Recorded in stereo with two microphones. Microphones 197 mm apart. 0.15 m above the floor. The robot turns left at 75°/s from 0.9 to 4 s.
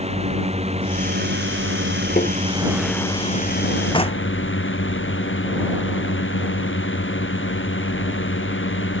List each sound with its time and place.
0.0 s a drone: 30° right; by 9.0 s 95° left
2.2 s tapping: 40° left (ahead or behind); by 2.4 s 55° left (ahead or behind)
3.9 s knocking: 25° left (ahead or behind); by 4.3 s 30° left (ahead or behind)